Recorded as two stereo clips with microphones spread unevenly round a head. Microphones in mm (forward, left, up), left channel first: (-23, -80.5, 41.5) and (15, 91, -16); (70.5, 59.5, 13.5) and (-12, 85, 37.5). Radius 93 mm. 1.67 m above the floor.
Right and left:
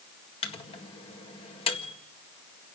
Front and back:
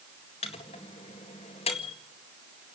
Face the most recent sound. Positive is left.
turn(degrees=-50)